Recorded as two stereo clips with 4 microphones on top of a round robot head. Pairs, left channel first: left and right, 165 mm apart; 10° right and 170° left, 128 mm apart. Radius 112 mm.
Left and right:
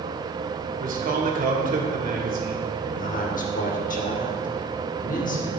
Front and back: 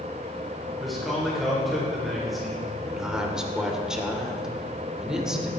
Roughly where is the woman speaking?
Left.